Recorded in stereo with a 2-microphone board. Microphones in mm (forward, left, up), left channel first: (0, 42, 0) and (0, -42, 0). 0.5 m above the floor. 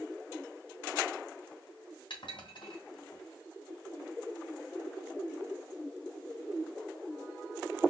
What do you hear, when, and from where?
2.1 s dishes clattering: 75° left (ahead or behind), 2.5 m